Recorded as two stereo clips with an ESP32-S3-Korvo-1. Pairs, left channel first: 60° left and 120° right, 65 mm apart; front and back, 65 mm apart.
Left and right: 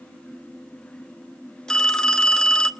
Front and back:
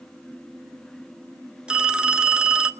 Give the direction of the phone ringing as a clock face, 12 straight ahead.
8 o'clock.